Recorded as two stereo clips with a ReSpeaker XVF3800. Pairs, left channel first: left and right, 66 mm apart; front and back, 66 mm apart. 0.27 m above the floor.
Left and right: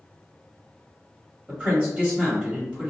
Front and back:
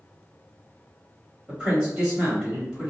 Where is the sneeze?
I don't hear a sneeze.